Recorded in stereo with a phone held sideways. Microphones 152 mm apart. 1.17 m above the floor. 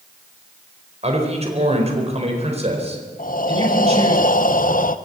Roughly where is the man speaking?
Right.